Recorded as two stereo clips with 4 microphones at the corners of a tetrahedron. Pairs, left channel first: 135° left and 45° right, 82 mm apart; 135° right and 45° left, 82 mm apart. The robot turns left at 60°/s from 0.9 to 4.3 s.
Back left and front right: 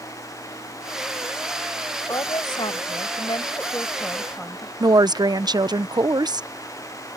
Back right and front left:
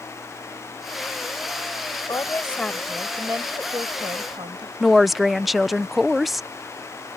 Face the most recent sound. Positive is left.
turn(degrees=-45)